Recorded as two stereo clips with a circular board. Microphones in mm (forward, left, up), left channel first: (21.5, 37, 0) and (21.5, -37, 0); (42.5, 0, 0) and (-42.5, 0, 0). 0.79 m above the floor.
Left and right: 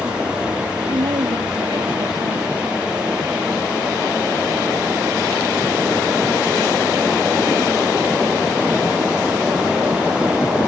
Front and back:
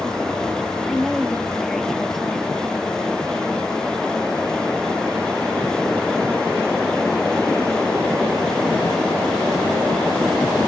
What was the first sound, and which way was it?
A woman speaking, 85° right.